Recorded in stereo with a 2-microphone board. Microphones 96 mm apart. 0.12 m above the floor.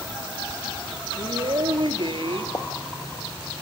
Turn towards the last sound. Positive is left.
turn(degrees=40)  # may be behind; listen again after turning